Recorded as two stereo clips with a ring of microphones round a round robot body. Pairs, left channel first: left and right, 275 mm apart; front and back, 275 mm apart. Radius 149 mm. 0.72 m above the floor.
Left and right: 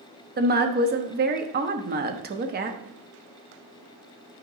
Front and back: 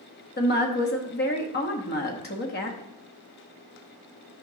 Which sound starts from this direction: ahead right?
A woman speaking, at 0.4 s.